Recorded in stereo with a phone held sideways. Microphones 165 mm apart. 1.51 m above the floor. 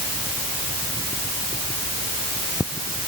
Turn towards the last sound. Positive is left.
No sound to turn to.